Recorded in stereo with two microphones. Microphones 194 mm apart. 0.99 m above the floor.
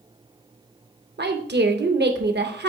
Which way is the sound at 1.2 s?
60° right (ahead or behind).